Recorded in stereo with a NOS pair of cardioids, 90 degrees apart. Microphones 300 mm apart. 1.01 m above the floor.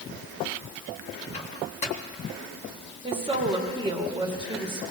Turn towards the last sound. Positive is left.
turn(degrees=-15)